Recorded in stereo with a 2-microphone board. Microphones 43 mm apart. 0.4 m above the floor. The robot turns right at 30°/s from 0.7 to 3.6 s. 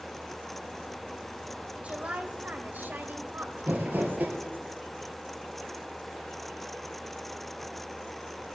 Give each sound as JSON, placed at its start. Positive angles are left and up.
{"t": 1.8, "sound": "a woman speaking", "azimuth_deg": -140, "distance_m": 1.5}
{"t": 3.6, "sound": "crumpling", "side_deg": -45, "distance_m": 3.5}